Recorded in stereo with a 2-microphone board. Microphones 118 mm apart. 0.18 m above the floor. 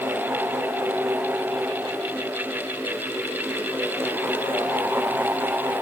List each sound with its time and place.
Only background noise.